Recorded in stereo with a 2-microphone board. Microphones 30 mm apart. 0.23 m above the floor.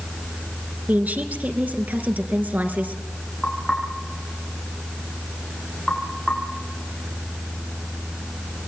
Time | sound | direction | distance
0.9 | a woman speaking | 65° right (ahead or behind) | 3.5 m
3.4 | knocking | centre (ahead or behind) | 7 m